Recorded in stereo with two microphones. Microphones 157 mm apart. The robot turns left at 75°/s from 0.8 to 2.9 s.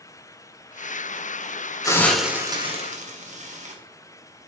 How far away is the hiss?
About 1.9 m.